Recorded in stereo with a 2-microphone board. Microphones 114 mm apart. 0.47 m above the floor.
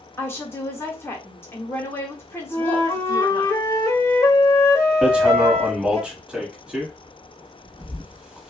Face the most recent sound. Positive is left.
turn(degrees=-10)  # may be behind; listen again after turning